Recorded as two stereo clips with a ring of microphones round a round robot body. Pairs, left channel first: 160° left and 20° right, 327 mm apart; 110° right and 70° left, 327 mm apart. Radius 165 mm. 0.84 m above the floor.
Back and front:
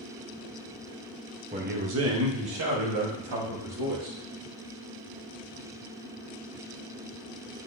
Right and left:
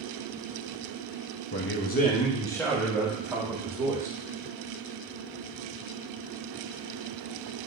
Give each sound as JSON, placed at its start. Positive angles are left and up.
{"t": 1.5, "sound": "a man speaking", "azimuth_deg": -85, "distance_m": 1.2}